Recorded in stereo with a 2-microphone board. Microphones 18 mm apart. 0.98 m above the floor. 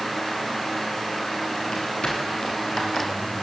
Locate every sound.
1.7 s footsteps: 55° left (ahead or behind), 9 m